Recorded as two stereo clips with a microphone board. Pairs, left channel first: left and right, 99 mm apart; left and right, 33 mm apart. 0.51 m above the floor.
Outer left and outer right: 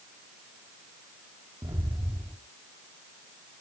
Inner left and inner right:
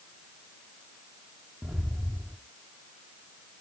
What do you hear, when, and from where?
1.6 s footsteps: 45° right (ahead or behind), 1.7 m